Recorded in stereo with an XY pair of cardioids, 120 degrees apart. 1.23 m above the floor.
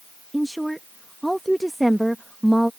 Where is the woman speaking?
5° right.